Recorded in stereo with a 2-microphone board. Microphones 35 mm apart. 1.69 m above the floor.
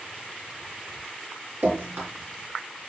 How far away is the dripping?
About 5 m.